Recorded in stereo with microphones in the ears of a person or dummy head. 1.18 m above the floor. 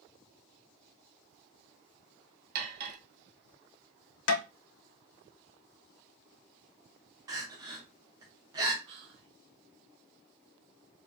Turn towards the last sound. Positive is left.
turn(degrees=-30)  # may be behind; listen again after turning